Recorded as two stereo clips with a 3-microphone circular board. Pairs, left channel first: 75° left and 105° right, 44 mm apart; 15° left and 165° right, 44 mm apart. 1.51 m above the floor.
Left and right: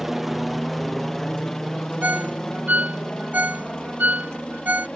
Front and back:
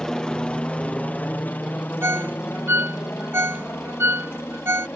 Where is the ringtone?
155° right.